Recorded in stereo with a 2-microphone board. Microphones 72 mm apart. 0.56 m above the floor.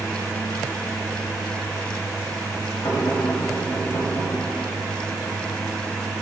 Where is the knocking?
60° left (ahead or behind), 3 m.